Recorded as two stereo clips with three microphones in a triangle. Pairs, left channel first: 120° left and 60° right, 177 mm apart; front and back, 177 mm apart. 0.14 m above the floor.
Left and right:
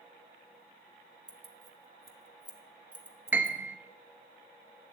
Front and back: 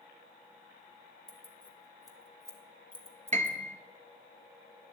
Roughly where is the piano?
Behind right.